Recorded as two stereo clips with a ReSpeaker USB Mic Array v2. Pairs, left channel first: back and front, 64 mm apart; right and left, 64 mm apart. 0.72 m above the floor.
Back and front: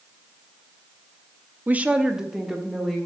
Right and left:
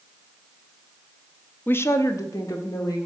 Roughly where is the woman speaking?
Ahead right.